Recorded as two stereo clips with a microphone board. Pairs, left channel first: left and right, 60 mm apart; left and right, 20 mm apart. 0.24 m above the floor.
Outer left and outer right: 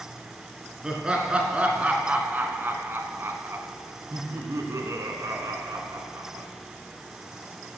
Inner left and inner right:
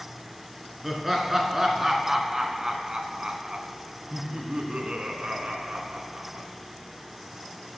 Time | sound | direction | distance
0.8 | laughter | 15° right (ahead or behind) | 3 m